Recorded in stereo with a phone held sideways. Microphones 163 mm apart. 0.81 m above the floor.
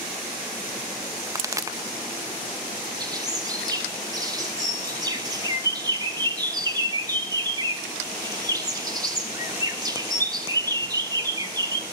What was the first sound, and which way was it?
A pop, 20° right (ahead or behind).